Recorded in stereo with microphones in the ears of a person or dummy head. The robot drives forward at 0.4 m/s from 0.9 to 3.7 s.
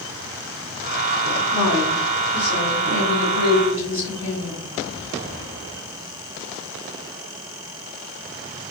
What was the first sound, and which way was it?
A woman speaking, 35° left (ahead or behind).